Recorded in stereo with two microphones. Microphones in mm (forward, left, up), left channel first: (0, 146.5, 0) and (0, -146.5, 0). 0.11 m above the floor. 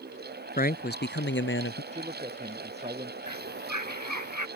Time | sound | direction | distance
0.6 | a man speaking | 30° left (ahead or behind) | ?
1.9 | a man speaking | 20° right (ahead or behind) | ?
3.3 | a bird | 85° right | ?